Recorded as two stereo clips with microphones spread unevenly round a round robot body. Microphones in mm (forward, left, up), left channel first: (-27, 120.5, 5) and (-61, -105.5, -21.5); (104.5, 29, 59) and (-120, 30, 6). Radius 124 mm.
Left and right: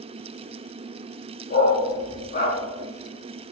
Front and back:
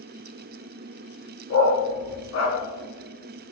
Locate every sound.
1.5 s a dog barking: 25° left, 1.7 m